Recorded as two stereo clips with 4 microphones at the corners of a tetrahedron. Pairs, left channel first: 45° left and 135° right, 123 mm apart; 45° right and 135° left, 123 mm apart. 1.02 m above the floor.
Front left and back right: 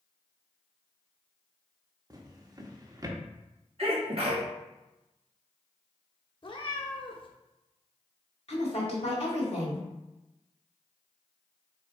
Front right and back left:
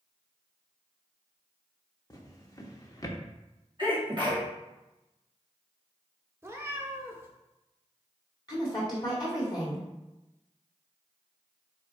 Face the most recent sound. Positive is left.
turn(degrees=10)